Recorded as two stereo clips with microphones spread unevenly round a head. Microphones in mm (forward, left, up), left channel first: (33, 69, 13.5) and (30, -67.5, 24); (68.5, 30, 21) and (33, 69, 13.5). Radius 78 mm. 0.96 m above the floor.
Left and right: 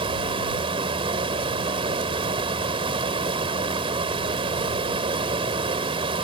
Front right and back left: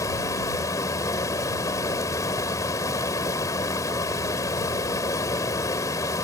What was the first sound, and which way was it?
Running water, 40° right.